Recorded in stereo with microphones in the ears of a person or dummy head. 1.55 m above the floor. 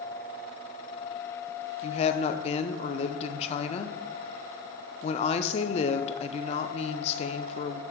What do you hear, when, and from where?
1.8 s a woman speaking: 40° left (ahead or behind), 0.7 m